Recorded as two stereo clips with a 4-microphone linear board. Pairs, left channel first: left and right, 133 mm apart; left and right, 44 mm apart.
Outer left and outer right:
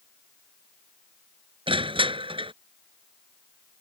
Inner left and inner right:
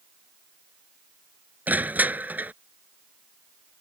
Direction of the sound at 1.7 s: 40° right (ahead or behind).